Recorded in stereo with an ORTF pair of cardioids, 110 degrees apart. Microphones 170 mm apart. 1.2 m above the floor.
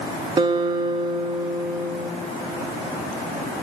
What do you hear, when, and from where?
0.4 s a guitar: 30° right, 1.3 m